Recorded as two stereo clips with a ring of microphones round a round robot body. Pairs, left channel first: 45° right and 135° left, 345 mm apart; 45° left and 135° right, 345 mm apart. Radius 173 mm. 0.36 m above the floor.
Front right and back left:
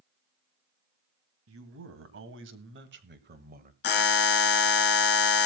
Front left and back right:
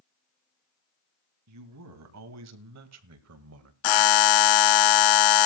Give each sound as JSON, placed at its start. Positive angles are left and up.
{"t": 1.5, "sound": "a man speaking", "azimuth_deg": -175, "distance_m": 2.5}
{"t": 3.8, "sound": "a buzzer", "azimuth_deg": 15, "distance_m": 0.7}